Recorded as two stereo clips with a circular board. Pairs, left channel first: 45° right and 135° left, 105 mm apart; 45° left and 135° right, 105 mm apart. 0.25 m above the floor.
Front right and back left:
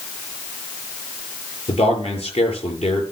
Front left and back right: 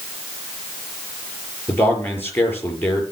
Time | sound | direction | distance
1.7 | a man speaking | 25° right | 5.5 m